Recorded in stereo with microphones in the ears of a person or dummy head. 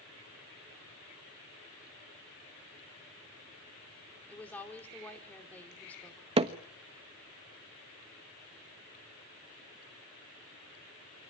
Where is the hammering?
25° right (ahead or behind), 1.1 m.